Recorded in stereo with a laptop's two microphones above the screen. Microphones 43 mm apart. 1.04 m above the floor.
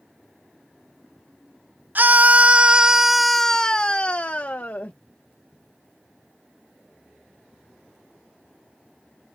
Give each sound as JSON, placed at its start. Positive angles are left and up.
{"t": 1.9, "sound": "a scream", "side_deg": -45}